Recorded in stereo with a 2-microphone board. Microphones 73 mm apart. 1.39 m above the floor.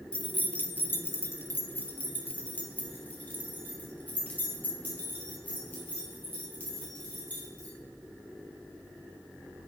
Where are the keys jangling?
15° left (ahead or behind), 0.5 m; by 7.7 s 20° left (ahead or behind), 4.5 m.